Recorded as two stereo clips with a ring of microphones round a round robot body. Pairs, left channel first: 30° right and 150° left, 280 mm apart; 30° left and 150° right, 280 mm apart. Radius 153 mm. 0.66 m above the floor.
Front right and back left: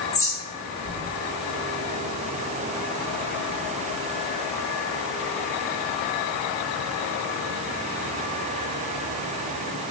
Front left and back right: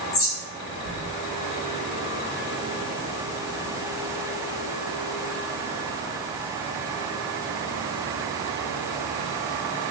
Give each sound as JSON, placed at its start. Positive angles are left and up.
{"t": 0.1, "sound": "a bird", "azimuth_deg": 45, "distance_m": 1.0}